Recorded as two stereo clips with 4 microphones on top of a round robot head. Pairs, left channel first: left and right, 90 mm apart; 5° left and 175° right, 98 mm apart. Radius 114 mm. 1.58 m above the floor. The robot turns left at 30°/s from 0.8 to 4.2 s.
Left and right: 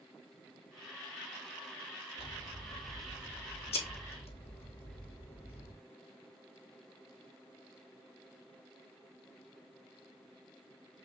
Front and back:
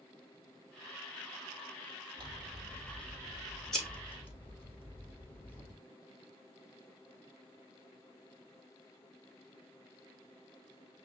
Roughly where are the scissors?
Behind left.